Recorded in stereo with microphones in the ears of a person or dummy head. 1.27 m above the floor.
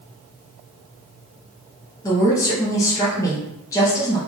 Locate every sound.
2.0 s a woman speaking: 15° left (ahead or behind), 0.9 m